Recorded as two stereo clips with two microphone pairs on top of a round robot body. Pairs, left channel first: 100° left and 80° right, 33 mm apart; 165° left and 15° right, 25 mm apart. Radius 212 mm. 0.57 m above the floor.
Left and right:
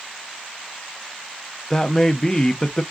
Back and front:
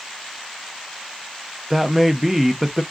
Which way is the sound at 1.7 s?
40° left.